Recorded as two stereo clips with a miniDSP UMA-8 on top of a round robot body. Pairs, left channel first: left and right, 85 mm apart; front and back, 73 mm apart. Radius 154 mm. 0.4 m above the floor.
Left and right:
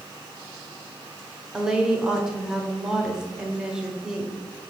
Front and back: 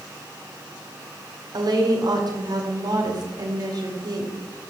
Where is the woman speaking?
170° right, 2.5 m.